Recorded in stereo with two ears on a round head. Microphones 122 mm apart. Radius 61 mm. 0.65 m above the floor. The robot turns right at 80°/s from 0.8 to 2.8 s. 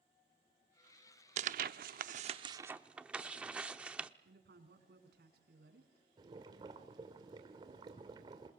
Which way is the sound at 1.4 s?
50° right (ahead or behind).